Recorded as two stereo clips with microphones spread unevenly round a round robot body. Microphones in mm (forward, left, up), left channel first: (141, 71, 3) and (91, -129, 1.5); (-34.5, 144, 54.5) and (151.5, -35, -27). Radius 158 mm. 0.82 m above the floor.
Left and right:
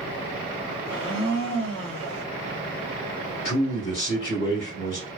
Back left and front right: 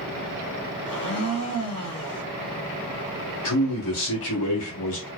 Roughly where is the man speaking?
Behind left.